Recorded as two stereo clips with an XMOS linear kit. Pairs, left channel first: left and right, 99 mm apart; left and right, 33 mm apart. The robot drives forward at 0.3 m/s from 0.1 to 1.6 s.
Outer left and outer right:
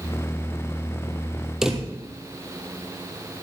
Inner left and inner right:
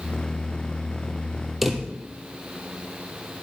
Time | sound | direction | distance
1.6 | a drawer | 5° right (ahead or behind) | 1.7 m